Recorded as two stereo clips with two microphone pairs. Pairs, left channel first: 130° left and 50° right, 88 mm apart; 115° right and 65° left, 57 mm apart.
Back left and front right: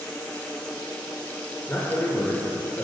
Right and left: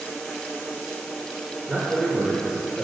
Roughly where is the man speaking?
Behind left.